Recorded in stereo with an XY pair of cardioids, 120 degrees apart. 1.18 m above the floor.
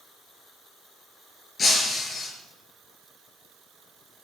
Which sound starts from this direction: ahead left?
Breaking glass, at 1.6 s.